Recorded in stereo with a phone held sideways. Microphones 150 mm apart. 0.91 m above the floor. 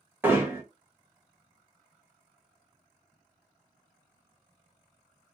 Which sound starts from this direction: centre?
Hammering, at 0.2 s.